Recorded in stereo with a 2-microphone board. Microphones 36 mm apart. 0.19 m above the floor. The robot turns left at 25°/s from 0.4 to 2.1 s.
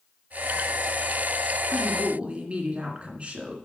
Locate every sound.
1.7 s a woman speaking: 40° right (ahead or behind), 2 m; by 3.5 s 35° right (ahead or behind), 2 m